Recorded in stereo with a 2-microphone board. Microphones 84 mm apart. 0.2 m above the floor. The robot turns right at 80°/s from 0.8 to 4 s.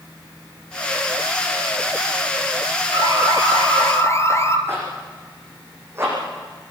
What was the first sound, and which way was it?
An alarm, 60° left.